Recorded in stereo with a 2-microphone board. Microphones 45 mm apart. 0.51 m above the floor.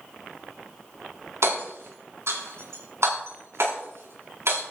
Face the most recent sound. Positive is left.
turn(degrees=-70)  # may be behind; listen again after turning